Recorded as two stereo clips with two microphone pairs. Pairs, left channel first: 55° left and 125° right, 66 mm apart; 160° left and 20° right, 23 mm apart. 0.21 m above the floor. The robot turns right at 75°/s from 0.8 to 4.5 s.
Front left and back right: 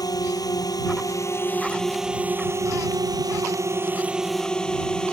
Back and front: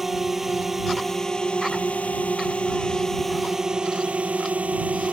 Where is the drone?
60° left; by 5.1 s 25° right.